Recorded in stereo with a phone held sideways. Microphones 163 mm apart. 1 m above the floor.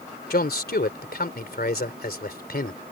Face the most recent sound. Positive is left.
turn(degrees=65)  # may be behind; listen again after turning